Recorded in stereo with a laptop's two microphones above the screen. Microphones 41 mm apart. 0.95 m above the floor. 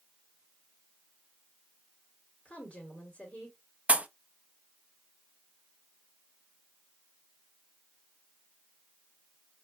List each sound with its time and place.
2.5 s a woman speaking: 35° left (ahead or behind), 2 m
3.9 s a pop: 30° right (ahead or behind), 0.5 m